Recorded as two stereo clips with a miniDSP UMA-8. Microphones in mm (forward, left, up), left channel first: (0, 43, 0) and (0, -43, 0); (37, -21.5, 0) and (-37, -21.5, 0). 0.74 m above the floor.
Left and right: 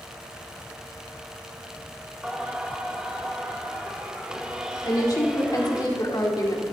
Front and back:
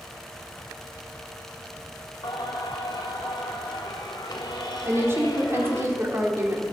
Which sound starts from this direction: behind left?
A woman speaking, at 4.8 s.